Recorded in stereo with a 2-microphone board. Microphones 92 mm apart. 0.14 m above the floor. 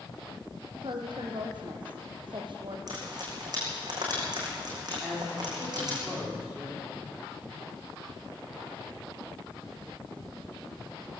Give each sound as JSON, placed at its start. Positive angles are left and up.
{"t": 0.7, "sound": "a woman speaking", "side_deg": -60, "distance_m": 4.5}
{"t": 2.9, "sound": "frying", "side_deg": -45, "distance_m": 6.5}
{"t": 5.0, "sound": "a man speaking", "side_deg": -5, "distance_m": 9.5}